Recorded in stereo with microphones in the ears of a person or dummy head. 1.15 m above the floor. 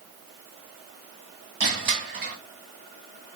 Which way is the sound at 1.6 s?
45° right (ahead or behind).